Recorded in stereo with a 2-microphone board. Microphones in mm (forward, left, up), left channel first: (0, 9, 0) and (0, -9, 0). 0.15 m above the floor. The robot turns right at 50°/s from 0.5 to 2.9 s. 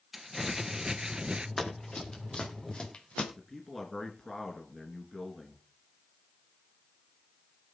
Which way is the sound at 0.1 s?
165° right.